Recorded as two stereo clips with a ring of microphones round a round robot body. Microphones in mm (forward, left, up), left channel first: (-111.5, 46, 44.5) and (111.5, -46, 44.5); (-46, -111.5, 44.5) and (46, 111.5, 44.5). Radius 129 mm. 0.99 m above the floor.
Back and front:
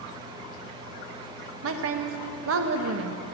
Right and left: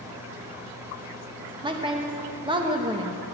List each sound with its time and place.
1.6 s a woman speaking: straight ahead, 1.2 m